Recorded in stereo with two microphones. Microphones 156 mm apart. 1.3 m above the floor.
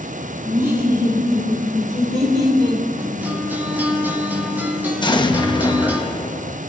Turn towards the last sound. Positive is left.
turn(degrees=30)  # may be behind; listen again after turning